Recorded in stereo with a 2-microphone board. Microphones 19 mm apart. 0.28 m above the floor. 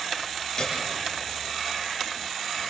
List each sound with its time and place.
0.6 s a piano: 40° left (ahead or behind), 6 m